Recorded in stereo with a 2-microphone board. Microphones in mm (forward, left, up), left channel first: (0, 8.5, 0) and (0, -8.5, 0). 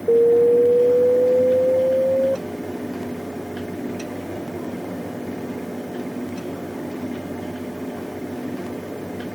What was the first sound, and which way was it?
An alarm, 25° left (ahead or behind).